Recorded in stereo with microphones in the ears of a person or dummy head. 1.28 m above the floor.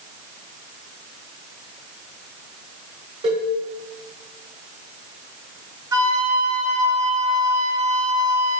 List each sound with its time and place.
3.2 s a cowbell: 35° right (ahead or behind), 4 m
5.9 s a flute: 15° right (ahead or behind), 3.5 m